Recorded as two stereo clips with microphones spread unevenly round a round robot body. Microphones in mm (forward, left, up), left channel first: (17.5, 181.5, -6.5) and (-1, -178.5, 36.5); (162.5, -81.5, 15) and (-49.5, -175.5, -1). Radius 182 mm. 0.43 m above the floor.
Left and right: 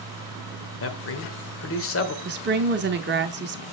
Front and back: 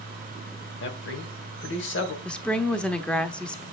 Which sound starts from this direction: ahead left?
A man speaking, at 0.8 s.